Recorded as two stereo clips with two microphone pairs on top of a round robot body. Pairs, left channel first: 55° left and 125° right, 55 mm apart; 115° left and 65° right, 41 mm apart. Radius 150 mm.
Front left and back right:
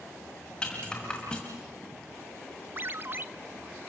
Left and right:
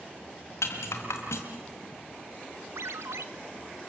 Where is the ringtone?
70° right, 0.7 m.